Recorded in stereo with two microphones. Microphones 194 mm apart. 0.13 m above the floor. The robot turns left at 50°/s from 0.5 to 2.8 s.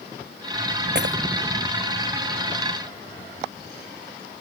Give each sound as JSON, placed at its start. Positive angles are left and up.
{"t": 0.9, "sound": "breaking glass", "side_deg": -60}